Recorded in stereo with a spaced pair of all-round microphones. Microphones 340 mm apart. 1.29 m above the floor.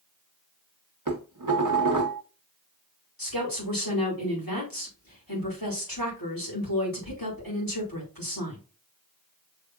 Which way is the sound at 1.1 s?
65° right (ahead or behind).